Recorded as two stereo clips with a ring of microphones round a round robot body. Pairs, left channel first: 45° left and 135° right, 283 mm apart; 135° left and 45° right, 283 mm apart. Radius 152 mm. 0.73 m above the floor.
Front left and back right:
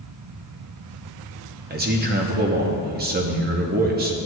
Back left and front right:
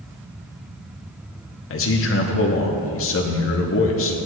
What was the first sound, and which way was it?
A man speaking, 170° left.